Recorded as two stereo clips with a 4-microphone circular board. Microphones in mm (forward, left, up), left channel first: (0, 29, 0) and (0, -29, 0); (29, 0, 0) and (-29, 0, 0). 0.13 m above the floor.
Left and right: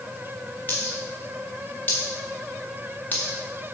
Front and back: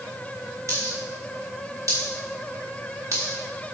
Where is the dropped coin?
150° left, 3 m.